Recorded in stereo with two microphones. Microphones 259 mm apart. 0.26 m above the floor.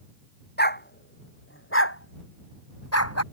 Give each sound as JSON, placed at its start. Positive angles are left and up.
{"t": 0.6, "sound": "a dog barking", "side_deg": 40}